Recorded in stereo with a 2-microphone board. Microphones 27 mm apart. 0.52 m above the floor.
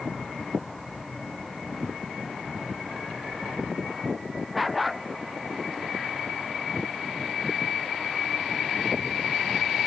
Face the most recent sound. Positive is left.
turn(degrees=-5)  # may be behind; listen again after turning